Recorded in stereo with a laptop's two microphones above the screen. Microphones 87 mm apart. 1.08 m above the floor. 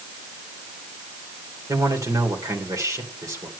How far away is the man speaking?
About 3 m.